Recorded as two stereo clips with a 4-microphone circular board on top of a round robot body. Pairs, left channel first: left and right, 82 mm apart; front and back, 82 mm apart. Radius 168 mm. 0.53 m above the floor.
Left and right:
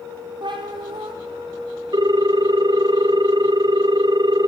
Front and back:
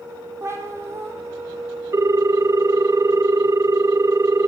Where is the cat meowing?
120° right, 2.5 m.